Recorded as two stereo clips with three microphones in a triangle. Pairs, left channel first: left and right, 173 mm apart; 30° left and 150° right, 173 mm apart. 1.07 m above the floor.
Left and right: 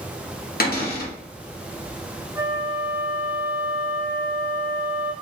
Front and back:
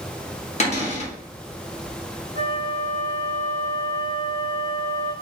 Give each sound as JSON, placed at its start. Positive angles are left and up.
{"t": 0.6, "sound": "a cupboard door", "azimuth_deg": 75, "distance_m": 1.3}
{"t": 2.4, "sound": "a flute", "azimuth_deg": -170, "distance_m": 1.6}